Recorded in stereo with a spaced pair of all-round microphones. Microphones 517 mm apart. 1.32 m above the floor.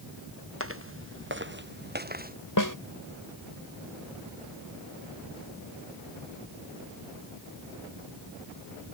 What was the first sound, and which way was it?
Footsteps, 25° right (ahead or behind).